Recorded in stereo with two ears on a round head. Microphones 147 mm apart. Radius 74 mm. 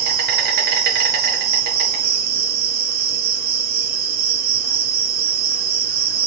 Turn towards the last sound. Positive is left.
turn(degrees=-60)  # may be behind; listen again after turning